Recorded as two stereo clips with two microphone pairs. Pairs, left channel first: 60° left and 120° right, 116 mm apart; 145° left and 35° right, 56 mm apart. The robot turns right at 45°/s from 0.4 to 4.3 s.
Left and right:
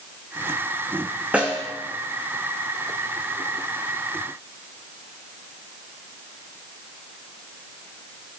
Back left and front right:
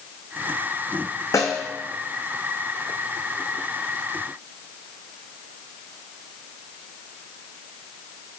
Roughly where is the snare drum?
Behind.